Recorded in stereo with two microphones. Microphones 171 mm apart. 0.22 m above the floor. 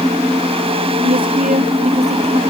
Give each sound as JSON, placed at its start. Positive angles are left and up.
{"t": 1.0, "sound": "a woman speaking", "side_deg": -60}